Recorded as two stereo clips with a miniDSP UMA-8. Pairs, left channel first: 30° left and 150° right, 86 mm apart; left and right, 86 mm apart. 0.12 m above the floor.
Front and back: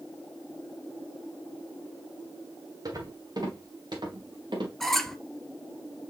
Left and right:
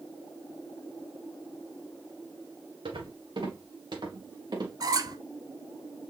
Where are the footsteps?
105° right, 2.5 m; by 4.7 s 125° right, 3 m.